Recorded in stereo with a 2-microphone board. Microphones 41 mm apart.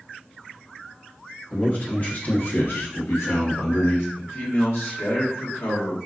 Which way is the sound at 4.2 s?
80° left.